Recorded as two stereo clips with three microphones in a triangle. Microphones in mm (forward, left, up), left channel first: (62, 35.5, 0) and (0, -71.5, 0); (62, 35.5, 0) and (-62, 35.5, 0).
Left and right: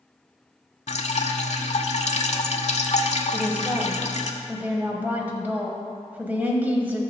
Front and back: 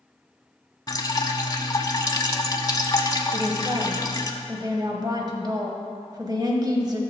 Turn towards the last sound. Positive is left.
turn(degrees=175)